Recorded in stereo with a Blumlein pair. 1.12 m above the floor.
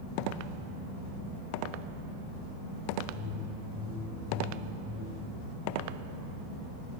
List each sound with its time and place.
3.1 s a whoosh: 20° left, 7 m